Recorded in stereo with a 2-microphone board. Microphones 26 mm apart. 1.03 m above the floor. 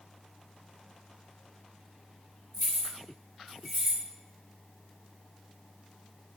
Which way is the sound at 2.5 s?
20° right (ahead or behind).